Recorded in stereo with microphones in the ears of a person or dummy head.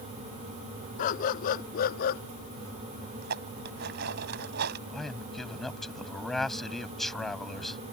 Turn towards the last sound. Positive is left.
turn(degrees=5)  # may be behind; listen again after turning